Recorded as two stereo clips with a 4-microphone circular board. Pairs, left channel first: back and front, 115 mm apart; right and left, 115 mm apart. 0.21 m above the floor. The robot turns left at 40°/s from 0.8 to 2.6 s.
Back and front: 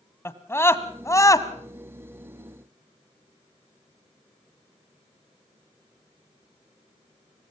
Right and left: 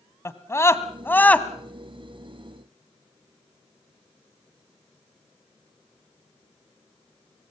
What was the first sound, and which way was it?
A scream, 135° right.